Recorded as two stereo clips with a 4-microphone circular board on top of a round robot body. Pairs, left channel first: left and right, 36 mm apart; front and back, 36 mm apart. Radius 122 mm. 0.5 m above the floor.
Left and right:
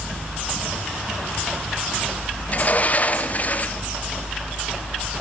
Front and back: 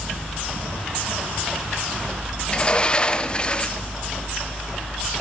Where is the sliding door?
60° left, 0.7 m.